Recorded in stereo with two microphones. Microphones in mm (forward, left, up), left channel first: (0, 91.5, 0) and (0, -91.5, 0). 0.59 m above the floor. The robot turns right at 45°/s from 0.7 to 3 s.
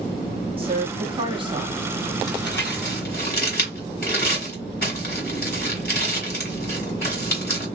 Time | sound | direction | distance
0.6 | a woman speaking | 30° right (ahead or behind) | 0.8 m
2.3 | crumpling | 70° left (ahead or behind) | 1.8 m